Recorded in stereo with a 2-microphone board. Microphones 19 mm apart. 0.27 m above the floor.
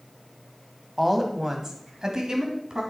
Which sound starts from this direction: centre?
A woman speaking, at 1.0 s.